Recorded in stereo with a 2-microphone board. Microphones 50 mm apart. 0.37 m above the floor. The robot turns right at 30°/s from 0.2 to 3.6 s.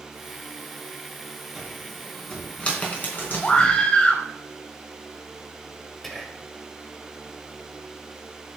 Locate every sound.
1.6 s a cupboard door: 10° right (ahead or behind), 3.5 m; by 3.8 s 50° left (ahead or behind), 3.5 m
3.4 s a scream: 25° left (ahead or behind), 2.0 m; by 4.2 s 20° left (ahead or behind), 2.0 m
6.0 s whispering: 5° left (ahead or behind), 1.6 m